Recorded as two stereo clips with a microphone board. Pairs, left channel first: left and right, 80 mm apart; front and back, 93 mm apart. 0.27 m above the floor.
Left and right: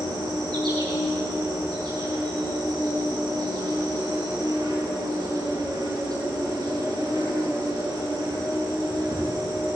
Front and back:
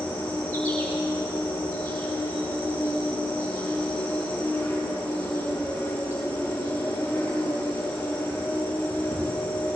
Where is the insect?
65° right, 5.5 m.